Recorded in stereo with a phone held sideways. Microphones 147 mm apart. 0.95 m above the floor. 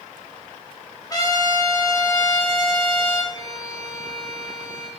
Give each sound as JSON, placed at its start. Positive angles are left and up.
{"t": 1.1, "sound": "a trumpet", "side_deg": 25, "distance_m": 2.5}
{"t": 3.3, "sound": "a violin", "side_deg": 30, "distance_m": 3.0}